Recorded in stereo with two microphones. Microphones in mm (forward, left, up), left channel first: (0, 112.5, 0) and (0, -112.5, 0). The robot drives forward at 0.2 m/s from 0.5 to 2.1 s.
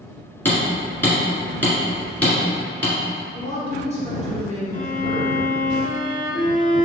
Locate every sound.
0.5 s hammering: 10° left (ahead or behind), 1.8 m
3.3 s a woman speaking: 30° left (ahead or behind), 1.9 m
4.7 s a violin: 35° left (ahead or behind), 0.7 m